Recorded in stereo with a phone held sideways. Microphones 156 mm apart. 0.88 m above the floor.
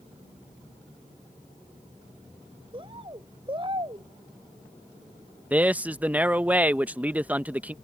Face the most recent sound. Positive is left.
turn(degrees=-10)  # may be behind; listen again after turning